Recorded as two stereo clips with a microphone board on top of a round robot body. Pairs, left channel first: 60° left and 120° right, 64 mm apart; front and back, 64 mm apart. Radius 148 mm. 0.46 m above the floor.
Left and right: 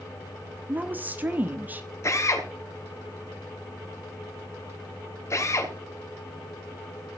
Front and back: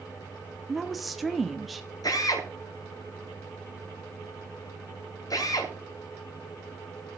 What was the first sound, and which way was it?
A woman speaking, 90° right.